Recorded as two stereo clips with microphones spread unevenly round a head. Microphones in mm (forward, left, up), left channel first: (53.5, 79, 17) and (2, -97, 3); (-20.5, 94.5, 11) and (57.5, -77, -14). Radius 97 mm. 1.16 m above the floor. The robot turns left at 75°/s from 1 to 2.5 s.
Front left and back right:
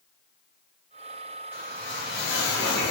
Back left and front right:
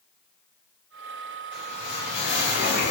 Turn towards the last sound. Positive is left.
turn(degrees=100)